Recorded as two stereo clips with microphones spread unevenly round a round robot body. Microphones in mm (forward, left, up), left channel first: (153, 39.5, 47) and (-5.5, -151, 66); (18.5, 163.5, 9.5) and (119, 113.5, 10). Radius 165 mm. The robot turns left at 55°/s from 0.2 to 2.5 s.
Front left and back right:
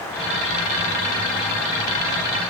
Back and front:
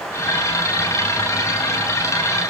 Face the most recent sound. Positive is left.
No sound to turn to.